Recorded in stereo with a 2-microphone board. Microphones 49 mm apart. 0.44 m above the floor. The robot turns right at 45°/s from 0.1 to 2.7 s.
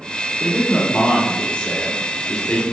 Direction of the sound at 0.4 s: 15° left (ahead or behind).